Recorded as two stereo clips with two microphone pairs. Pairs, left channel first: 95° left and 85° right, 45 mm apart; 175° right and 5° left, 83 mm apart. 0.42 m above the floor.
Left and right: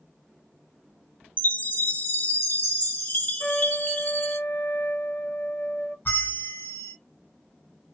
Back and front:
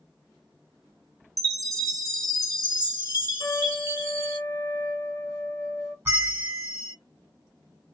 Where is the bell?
65° left, 1.9 m.